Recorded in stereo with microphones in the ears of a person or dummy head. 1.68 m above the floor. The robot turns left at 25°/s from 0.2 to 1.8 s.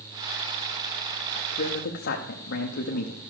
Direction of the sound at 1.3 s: 50° left (ahead or behind).